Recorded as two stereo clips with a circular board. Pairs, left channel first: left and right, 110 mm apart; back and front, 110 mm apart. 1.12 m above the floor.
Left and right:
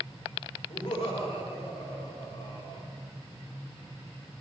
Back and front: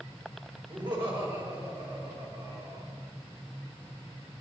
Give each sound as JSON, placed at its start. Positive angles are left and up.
{"t": 0.7, "sound": "laughter", "azimuth_deg": 45, "distance_m": 3.5}